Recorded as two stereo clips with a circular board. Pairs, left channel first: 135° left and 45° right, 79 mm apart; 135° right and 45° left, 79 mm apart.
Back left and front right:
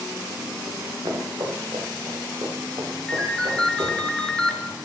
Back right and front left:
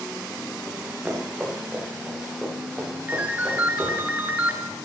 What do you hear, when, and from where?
0.7 s running footsteps: 20° right, 2.5 m; by 4.0 s 45° right, 5.5 m
3.1 s a ringtone: 70° left, 0.5 m